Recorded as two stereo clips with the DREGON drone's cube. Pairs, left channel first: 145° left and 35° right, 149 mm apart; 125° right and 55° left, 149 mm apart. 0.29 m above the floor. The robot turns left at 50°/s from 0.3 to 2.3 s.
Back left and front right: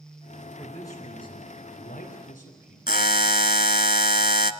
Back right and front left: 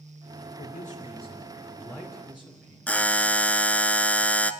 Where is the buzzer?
155° left, 0.6 m.